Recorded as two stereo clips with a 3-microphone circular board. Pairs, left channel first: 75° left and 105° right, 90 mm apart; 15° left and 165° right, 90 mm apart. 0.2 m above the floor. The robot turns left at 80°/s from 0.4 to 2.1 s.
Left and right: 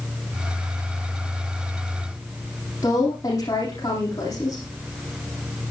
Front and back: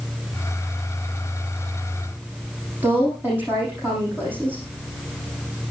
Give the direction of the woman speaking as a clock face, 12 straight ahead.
8 o'clock.